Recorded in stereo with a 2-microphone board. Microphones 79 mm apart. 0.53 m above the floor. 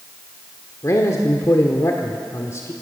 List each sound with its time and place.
0.8 s a man speaking: 40° left (ahead or behind), 1.5 m